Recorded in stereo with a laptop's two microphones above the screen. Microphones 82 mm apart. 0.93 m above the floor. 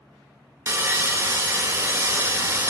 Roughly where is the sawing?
Right.